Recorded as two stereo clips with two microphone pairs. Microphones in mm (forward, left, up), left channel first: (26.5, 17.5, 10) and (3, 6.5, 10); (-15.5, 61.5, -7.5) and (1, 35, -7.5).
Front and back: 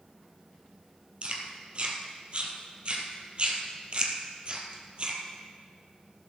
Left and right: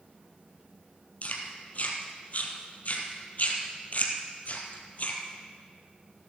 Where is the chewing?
155° left, 1.7 m.